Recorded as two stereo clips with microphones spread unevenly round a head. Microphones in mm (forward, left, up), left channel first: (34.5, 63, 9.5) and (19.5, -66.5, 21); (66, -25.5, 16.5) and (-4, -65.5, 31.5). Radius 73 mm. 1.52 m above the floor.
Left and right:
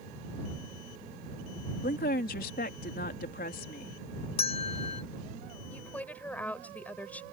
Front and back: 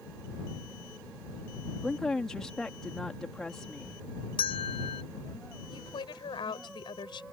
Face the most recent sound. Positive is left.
turn(degrees=5)